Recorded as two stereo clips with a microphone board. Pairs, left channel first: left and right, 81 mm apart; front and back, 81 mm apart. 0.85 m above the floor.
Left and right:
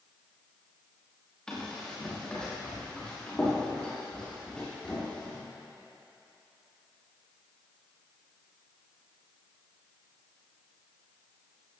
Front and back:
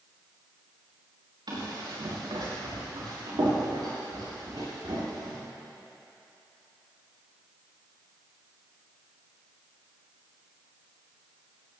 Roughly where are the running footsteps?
Behind.